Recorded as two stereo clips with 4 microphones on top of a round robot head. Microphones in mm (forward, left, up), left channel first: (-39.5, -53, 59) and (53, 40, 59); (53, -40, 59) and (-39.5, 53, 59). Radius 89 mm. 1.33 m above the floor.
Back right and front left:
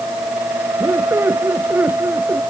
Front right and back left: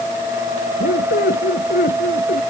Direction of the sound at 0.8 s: 30° right.